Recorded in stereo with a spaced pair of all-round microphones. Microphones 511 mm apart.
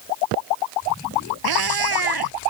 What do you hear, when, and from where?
1.4 s a cat meowing: 45° right (ahead or behind)